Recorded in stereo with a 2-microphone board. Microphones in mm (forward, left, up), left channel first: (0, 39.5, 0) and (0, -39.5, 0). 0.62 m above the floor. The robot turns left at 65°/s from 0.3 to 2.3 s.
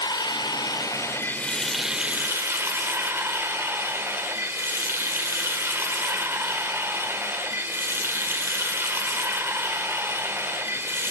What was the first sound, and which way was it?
Running water, 95° left.